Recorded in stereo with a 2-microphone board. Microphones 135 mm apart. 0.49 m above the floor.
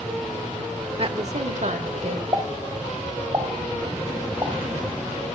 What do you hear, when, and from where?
1.0 s a woman speaking: 40° right (ahead or behind), 1.1 m; by 2.2 s 60° right (ahead or behind), 1.9 m
2.3 s a pop: 35° right (ahead or behind), 2.5 m